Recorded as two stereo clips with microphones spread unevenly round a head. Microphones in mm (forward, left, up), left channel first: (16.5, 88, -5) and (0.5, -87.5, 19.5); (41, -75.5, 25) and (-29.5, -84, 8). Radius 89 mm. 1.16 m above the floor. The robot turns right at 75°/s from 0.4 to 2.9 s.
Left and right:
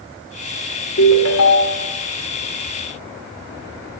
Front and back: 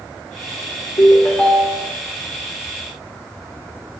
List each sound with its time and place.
1.0 s a ringtone: 55° left, 1.3 m; by 1.9 s 125° left, 1.3 m